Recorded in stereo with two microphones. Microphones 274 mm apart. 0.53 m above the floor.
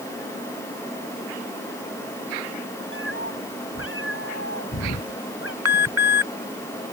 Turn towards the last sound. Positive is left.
turn(degrees=-65)  # may be behind; listen again after turning